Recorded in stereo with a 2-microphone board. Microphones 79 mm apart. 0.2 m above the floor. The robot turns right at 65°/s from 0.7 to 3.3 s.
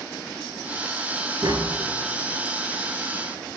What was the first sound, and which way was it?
Tapping, 60° right (ahead or behind).